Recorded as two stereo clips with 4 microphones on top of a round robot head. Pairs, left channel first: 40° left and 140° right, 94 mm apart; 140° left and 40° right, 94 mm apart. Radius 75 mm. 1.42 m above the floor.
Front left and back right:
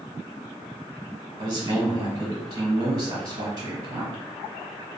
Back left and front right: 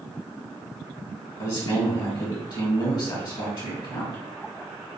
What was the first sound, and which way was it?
A man speaking, straight behind.